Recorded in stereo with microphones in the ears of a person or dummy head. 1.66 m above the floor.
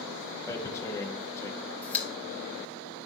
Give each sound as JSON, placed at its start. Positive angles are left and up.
{"t": 0.5, "sound": "tearing paper", "side_deg": 20, "distance_m": 0.8}
{"t": 1.8, "sound": "a pop", "side_deg": 15, "distance_m": 1.2}